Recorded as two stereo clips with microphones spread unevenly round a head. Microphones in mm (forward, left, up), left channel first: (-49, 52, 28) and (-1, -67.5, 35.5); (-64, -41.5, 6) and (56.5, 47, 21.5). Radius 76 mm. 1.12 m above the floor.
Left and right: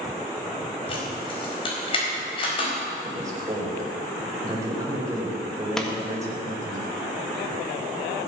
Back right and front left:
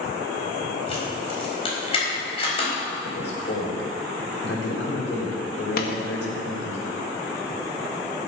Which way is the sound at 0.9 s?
160° left.